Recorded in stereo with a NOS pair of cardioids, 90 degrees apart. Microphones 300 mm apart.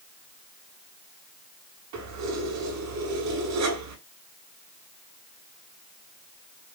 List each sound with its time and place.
1.9 s keys jangling: 65° right, 5.5 m